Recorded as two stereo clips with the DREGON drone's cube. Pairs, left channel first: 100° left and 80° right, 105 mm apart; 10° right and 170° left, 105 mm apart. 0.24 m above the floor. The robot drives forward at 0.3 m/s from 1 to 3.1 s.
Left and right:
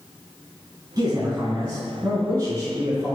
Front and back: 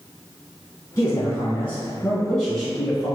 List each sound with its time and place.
1.0 s a man speaking: 60° right, 1.2 m; by 3.2 s 115° right, 1.1 m